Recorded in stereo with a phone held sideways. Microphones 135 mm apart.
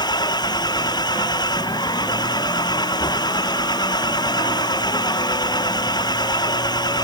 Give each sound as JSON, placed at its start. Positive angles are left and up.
{"t": 0.0, "sound": "an engine running", "side_deg": 30}